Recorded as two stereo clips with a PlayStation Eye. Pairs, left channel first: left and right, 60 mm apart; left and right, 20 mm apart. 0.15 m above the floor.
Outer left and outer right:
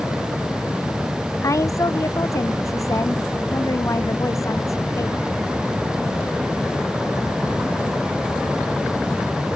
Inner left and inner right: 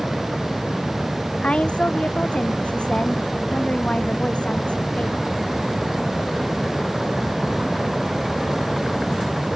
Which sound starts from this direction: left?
A woman speaking, at 1.4 s.